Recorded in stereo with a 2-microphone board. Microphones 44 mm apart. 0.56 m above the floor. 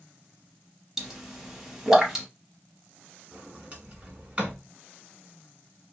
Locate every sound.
1.0 s a pop: 10° right (ahead or behind), 0.8 m
3.3 s a sliding door: 25° right (ahead or behind), 1.2 m